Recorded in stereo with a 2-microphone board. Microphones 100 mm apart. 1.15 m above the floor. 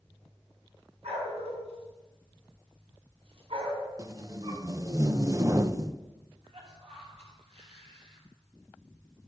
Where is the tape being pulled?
35° right (ahead or behind), 0.8 m.